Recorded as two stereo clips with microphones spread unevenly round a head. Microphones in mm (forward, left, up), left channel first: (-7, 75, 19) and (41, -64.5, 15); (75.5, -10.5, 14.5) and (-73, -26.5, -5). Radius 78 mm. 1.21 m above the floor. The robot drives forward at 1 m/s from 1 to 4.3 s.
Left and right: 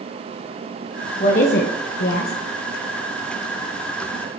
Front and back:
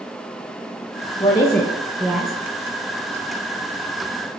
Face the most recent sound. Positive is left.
turn(degrees=155)